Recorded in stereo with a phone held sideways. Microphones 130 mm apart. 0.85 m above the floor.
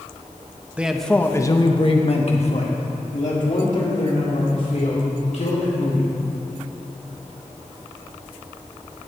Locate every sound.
0.8 s a man speaking: 10° right (ahead or behind), 0.8 m; by 6.1 s 70° left (ahead or behind), 3.5 m